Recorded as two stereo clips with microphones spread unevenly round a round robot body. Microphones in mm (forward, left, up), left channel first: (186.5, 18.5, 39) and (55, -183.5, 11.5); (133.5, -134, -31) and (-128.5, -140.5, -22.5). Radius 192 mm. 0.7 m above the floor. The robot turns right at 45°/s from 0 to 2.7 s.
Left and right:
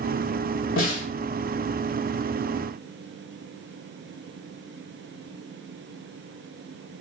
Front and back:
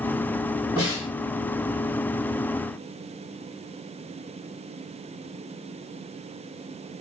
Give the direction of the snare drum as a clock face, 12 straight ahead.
9 o'clock.